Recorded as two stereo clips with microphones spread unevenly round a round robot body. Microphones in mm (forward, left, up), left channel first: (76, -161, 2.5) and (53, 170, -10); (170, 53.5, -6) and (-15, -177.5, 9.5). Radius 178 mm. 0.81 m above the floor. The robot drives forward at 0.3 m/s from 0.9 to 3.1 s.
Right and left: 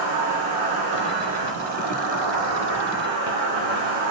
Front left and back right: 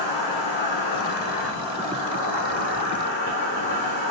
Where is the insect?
70° left, 1.0 m; by 4.1 s 110° left, 1.0 m.